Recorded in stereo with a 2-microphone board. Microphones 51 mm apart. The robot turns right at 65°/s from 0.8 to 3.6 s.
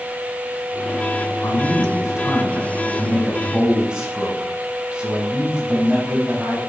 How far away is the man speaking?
About 5.5 m.